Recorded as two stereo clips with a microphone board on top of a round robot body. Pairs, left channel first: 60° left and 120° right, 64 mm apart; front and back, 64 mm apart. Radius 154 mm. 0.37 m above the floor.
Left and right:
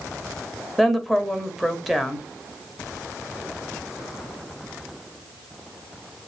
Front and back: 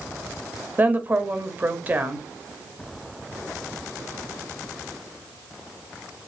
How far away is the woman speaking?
About 1.3 m.